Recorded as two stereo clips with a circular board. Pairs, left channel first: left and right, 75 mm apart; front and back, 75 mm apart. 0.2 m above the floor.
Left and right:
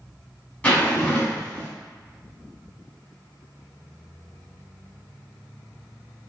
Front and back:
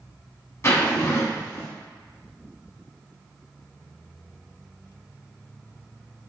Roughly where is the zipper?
Ahead left.